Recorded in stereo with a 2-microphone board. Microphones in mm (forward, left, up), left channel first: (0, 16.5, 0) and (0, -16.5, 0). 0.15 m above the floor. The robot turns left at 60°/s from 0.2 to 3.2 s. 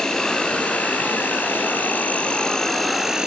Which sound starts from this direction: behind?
An insect, at 0.0 s.